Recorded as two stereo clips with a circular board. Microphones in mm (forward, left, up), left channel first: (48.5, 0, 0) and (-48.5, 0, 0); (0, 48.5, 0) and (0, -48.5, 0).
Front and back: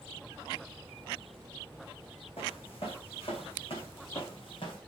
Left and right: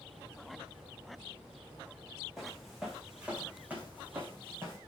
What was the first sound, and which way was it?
Footsteps, straight ahead.